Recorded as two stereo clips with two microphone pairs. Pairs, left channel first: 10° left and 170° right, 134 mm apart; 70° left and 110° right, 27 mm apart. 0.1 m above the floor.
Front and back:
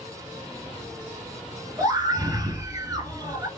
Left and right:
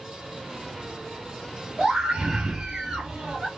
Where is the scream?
140° right, 1.3 m.